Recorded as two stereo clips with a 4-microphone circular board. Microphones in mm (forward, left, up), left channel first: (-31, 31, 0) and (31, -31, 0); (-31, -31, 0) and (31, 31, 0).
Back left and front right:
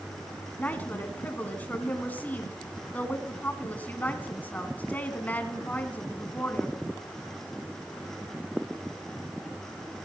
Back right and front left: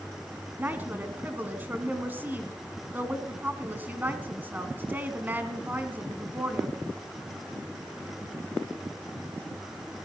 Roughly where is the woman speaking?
Left.